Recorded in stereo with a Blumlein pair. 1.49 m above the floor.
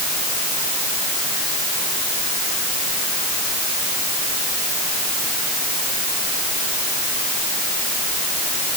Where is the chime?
No chime in this recording.